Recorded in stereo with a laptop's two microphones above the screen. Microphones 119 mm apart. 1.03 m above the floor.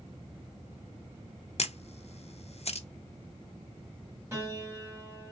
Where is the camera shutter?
60° left (ahead or behind), 0.6 m.